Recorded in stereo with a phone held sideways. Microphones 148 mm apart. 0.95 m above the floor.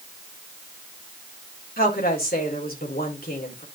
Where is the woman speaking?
80° left, 3.5 m.